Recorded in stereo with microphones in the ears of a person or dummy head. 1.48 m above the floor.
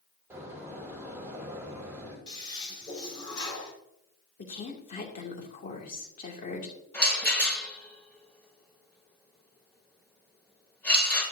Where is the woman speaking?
45° left (ahead or behind), 2.5 m.